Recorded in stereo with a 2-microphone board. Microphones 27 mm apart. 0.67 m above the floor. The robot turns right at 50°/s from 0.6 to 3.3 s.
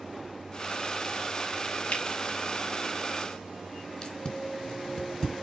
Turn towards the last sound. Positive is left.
turn(degrees=25)  # may be behind; listen again after turning